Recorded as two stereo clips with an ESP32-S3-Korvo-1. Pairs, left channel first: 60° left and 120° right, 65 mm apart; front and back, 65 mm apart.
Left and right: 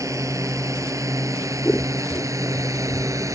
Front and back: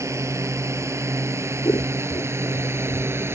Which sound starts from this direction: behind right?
A drone, at 0.0 s.